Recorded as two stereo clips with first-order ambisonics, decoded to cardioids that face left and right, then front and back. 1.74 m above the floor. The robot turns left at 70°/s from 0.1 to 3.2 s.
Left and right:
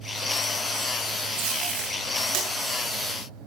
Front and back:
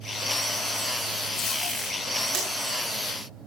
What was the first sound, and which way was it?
Tape being pulled, 55° right.